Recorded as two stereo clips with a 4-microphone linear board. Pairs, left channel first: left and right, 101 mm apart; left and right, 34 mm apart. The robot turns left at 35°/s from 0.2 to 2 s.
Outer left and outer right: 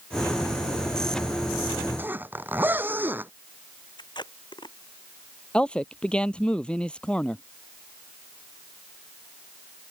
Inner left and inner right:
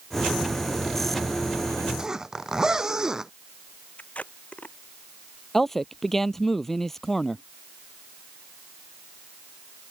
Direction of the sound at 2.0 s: 20° right (ahead or behind).